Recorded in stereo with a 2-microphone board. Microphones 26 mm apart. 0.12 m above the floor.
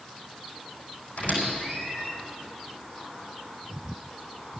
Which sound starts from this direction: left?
A squeak, at 1.2 s.